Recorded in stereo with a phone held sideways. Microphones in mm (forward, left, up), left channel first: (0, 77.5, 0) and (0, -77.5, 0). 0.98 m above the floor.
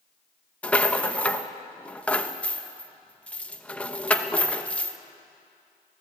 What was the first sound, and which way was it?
A rattle, 10° left (ahead or behind).